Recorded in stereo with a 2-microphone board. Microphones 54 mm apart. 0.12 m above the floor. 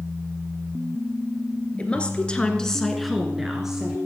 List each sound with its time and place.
1.8 s a woman speaking: 20° left (ahead or behind), 1.9 m; by 4.0 s 10° right (ahead or behind), 2 m